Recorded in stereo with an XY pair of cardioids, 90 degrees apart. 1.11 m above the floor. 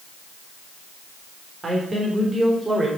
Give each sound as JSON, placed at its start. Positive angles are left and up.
{"t": 1.6, "sound": "a man speaking", "azimuth_deg": -30, "distance_m": 3.0}